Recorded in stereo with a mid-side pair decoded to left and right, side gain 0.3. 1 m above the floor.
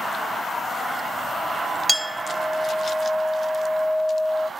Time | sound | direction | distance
1.9 | a clink | 10° right | 0.7 m